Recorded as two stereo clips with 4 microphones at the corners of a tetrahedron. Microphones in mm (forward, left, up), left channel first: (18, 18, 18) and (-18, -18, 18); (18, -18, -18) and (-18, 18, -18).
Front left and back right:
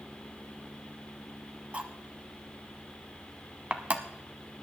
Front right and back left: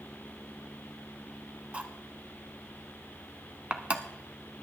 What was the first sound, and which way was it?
Cutlery clinking, straight behind.